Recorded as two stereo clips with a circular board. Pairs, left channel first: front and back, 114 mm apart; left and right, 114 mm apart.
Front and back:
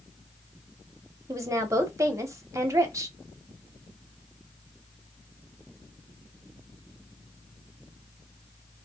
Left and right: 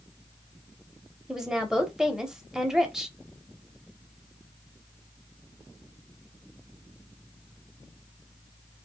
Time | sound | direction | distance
1.3 | a woman speaking | 170° right | 1.0 m